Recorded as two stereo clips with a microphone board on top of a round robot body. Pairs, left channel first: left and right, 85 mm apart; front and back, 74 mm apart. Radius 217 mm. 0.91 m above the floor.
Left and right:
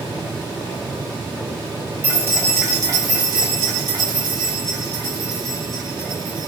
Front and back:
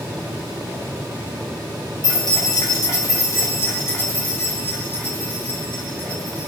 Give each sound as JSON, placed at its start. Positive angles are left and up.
{"t": 2.0, "sound": "keys jangling", "azimuth_deg": -20, "distance_m": 1.0}